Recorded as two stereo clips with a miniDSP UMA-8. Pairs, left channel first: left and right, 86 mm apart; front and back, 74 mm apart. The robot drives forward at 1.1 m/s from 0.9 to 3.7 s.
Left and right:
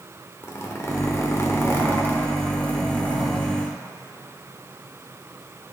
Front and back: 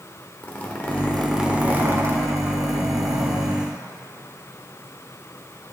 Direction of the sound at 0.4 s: 55° left.